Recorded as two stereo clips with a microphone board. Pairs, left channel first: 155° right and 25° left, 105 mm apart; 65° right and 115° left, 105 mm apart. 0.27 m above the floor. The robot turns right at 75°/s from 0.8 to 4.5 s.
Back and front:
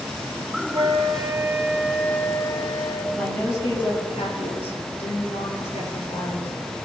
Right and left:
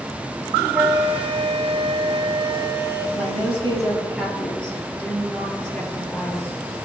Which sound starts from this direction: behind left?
A woman speaking, at 3.1 s.